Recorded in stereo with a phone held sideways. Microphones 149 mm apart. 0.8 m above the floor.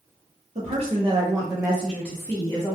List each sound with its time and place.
0.6 s a woman speaking: 50° right (ahead or behind), 1.0 m; by 2.8 s 30° left (ahead or behind), 1.0 m